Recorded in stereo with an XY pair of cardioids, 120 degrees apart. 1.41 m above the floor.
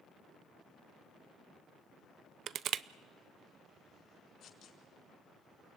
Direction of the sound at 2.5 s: 55° right.